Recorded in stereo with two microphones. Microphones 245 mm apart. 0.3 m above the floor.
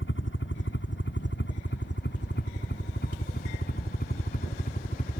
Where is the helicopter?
50° left (ahead or behind); by 5.2 s 35° left (ahead or behind).